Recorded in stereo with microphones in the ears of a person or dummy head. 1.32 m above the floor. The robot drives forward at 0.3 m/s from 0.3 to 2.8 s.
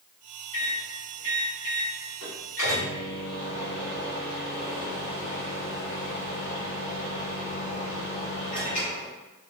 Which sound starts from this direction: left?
A microwave, at 0.5 s.